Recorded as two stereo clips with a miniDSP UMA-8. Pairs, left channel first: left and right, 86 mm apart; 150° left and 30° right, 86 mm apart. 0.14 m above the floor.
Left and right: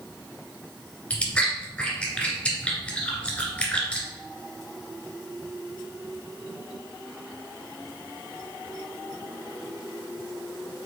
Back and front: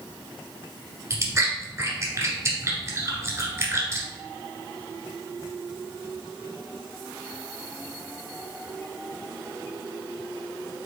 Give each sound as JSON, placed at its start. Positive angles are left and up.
{"t": 1.1, "sound": "chewing", "azimuth_deg": 20, "distance_m": 1.6}